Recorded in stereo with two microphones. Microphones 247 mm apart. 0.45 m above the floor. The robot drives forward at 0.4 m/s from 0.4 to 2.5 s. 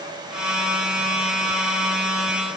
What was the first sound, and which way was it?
Only background noise.